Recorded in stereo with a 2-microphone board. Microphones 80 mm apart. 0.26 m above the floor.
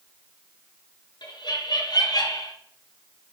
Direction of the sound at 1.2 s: 60° left (ahead or behind).